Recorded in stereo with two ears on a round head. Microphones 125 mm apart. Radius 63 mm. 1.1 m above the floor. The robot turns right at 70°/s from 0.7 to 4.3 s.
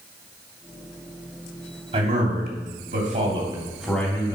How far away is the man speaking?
About 3 m.